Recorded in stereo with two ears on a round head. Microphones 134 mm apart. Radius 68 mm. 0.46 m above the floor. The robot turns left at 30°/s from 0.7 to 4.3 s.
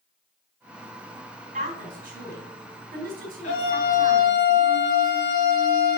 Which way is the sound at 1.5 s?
55° right (ahead or behind).